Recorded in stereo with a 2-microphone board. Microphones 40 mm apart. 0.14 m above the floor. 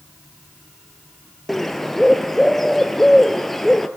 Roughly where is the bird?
Centre.